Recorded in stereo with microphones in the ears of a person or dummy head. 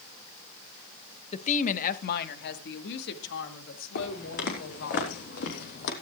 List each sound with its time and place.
1.3 s a woman speaking: 35° left (ahead or behind), 0.9 m; by 5.0 s 70° left (ahead or behind), 3 m
4.0 s footsteps: 55° left (ahead or behind), 5 m